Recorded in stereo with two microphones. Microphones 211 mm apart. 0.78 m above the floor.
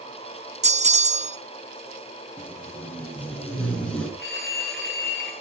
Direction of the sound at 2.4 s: 5° left (ahead or behind).